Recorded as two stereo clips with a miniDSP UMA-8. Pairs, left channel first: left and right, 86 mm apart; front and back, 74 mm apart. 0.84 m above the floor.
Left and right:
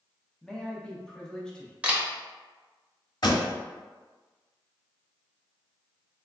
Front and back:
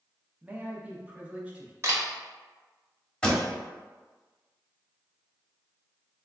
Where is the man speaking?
155° left, 0.5 m.